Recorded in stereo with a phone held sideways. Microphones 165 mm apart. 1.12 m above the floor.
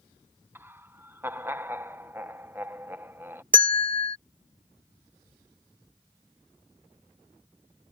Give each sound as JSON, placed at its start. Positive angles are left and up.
{"t": 0.6, "sound": "laughter", "side_deg": -15}
{"t": 3.5, "sound": "a bell", "side_deg": -60}